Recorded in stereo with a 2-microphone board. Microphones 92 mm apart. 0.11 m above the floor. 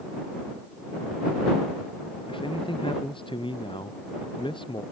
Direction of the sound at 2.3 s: 65° left (ahead or behind).